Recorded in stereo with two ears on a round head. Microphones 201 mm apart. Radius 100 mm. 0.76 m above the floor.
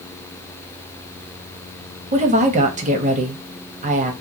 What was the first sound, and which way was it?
A woman speaking, 35° right (ahead or behind).